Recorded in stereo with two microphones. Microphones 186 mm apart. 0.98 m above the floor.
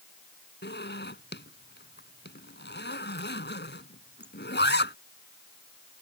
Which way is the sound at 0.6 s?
70° left (ahead or behind).